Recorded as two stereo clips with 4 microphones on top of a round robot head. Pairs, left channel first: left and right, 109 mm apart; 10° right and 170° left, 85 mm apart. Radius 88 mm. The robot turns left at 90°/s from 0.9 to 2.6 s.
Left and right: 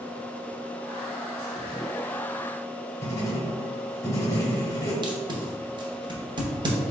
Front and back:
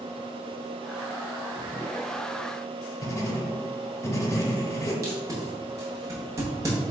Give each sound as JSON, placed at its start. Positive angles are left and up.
{"t": 3.0, "sound": "writing", "azimuth_deg": 35, "distance_m": 0.9}
{"t": 5.0, "sound": "tape being pulled", "azimuth_deg": -135, "distance_m": 0.8}